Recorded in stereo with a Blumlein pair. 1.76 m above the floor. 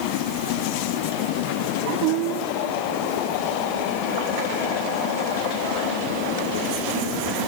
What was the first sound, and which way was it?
Only background noise.